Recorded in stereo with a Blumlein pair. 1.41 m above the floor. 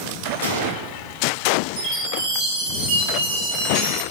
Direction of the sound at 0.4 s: 60° right.